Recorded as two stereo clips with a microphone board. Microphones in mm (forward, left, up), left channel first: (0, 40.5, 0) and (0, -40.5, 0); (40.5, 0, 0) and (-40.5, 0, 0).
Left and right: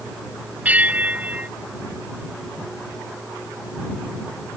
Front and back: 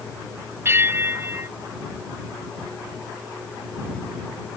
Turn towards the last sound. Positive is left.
turn(degrees=-145)